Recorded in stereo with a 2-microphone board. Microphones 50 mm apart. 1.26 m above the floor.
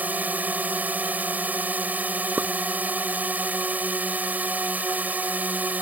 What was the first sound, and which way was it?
A drone, 35° right (ahead or behind).